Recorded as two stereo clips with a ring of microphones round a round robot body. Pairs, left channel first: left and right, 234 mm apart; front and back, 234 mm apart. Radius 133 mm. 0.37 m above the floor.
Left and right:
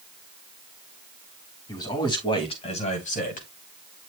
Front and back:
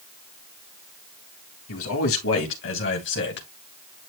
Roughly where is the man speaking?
Ahead.